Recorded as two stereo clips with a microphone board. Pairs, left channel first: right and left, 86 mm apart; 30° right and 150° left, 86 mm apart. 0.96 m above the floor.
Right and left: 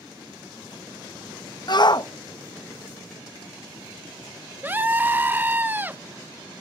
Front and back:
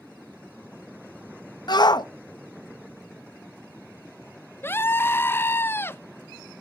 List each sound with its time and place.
1.7 s a shout: 60° right, 0.7 m
4.6 s a scream: 25° left, 0.6 m